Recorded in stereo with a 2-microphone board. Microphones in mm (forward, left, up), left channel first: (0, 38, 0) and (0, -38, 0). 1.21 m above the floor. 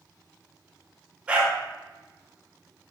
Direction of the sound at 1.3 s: 15° right (ahead or behind).